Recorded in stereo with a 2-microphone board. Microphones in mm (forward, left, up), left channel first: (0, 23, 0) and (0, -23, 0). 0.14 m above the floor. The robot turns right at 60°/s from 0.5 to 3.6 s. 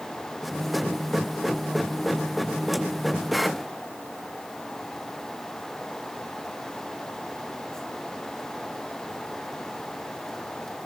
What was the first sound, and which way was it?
Only background noise.